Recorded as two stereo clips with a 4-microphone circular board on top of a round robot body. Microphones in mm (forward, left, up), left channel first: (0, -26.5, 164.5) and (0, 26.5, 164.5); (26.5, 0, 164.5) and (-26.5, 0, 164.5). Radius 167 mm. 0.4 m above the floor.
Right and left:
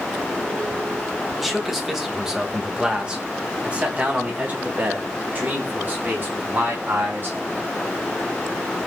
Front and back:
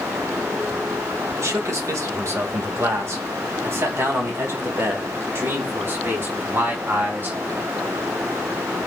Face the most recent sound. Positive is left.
turn(degrees=135)